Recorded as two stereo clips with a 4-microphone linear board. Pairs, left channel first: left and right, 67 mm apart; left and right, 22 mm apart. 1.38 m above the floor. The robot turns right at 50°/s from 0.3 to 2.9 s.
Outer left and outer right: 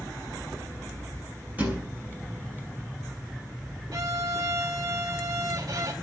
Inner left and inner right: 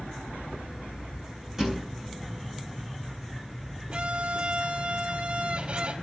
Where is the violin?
65° right (ahead or behind), 4 m.